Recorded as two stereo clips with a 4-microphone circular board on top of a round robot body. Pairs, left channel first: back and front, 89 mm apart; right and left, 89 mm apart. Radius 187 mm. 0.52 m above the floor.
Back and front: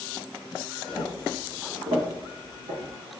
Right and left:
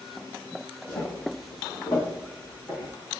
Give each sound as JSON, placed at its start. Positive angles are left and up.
{"t": 0.9, "sound": "footsteps", "azimuth_deg": -90, "distance_m": 1.2}